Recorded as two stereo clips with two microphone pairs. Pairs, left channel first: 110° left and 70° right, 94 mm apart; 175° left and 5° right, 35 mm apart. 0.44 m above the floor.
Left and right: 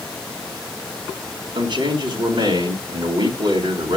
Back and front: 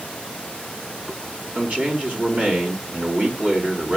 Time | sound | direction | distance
1.6 | a man speaking | 40° right | 4 m